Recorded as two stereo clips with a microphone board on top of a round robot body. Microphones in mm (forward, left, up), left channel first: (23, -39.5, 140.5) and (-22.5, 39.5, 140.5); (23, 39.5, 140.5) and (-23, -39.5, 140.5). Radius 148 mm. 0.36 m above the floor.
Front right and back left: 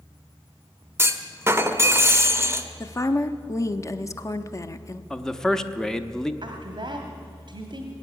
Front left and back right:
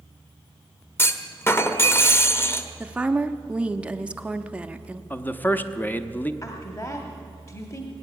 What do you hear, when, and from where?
1.0 s a clunk: 95° left, 1.2 m
2.8 s a woman speaking: 50° right, 0.9 m
5.1 s a man speaking: 15° left, 0.9 m
6.4 s a woman speaking: 105° left, 1.3 m